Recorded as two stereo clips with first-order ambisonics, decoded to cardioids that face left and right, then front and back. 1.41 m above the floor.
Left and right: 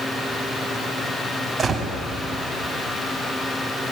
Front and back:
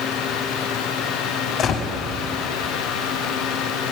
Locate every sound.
1.6 s a gunshot: 40° right, 1.4 m